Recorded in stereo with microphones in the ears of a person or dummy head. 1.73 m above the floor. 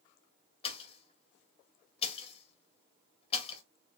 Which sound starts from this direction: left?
A pop, at 0.6 s.